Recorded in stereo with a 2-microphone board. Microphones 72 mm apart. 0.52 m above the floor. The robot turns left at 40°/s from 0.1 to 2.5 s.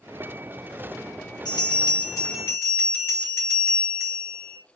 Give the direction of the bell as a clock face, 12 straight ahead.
9 o'clock.